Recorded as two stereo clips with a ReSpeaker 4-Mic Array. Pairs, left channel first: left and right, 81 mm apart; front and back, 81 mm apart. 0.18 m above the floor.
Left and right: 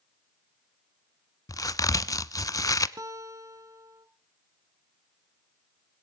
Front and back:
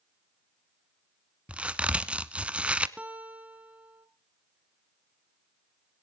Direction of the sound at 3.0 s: 115° right.